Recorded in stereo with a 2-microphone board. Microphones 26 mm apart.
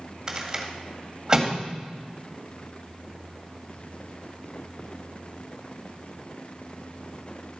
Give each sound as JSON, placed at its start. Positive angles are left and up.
{"t": 0.3, "sound": "a rattle", "side_deg": -20, "distance_m": 1.7}